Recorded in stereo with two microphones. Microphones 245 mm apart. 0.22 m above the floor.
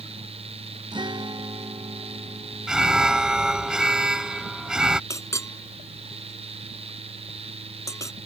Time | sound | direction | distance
0.9 | a guitar | 15° right (ahead or behind) | ?
2.7 | an alarm | 5° right (ahead or behind) | ?
5.1 | a clink | 10° left (ahead or behind) | ?